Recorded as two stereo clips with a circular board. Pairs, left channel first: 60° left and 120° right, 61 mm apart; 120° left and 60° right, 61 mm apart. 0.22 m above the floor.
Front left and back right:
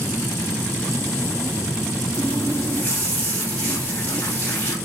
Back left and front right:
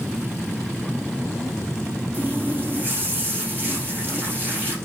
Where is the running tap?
Straight ahead, 7 m.